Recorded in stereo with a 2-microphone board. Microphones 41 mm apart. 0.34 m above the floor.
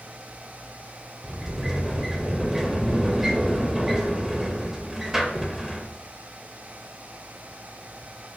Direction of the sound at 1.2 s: 10° right (ahead or behind).